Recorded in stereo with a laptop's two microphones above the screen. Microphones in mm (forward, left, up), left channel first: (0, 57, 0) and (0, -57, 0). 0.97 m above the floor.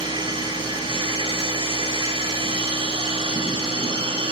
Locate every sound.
0.0 s a machine running: 50° right (ahead or behind), 5 m